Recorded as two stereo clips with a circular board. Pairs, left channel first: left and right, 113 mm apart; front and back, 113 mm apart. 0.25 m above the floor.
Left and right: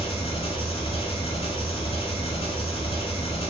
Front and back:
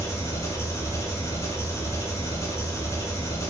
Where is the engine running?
65° left, 0.9 m.